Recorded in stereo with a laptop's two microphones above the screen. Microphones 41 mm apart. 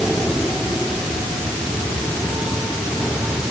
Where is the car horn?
No car horn in this recording.